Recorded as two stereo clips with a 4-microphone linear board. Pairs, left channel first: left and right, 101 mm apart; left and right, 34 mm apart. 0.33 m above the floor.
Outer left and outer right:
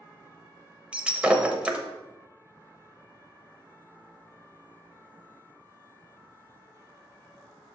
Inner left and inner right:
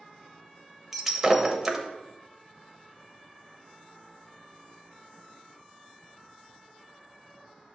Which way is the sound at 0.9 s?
10° right (ahead or behind).